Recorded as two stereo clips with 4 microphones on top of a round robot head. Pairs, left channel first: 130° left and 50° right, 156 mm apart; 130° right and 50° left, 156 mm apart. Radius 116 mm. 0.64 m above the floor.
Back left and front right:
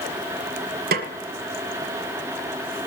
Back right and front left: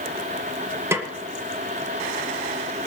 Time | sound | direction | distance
0.9 | a snare drum | 25° right | 1.5 m